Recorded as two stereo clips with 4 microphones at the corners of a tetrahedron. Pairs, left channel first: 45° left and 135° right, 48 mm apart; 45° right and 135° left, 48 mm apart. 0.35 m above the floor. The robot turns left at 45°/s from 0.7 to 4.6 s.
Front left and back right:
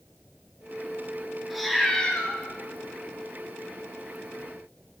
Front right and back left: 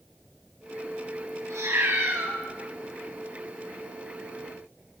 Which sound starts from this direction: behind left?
A cat meowing, at 1.5 s.